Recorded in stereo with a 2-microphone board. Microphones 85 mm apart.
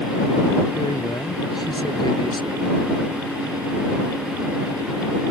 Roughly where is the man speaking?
Left.